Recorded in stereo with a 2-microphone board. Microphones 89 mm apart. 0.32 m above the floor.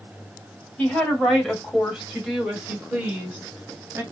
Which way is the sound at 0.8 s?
15° left (ahead or behind).